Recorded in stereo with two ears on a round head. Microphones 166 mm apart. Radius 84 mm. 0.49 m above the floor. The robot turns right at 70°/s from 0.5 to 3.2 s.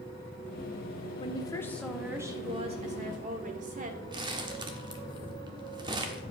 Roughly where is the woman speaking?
Behind left.